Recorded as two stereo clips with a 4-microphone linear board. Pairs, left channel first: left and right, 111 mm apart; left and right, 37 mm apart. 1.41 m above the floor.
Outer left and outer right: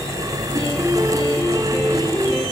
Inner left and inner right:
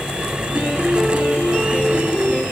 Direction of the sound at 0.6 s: 35° right (ahead or behind).